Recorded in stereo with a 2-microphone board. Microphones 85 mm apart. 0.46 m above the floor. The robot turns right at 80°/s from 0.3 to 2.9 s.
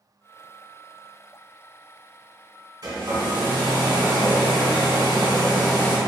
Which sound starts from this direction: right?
A hair dryer, at 2.8 s.